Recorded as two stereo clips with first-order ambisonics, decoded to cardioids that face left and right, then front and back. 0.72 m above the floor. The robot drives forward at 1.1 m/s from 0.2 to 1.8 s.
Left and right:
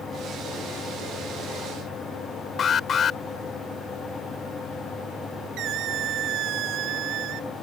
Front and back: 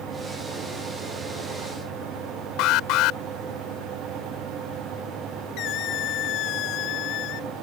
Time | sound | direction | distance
2.6 | an alarm | 30° left | ?
5.6 | a squeak | 45° right | ?